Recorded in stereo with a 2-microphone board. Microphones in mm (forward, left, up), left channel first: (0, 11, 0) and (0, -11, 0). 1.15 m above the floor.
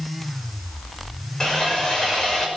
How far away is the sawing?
About 5.5 m.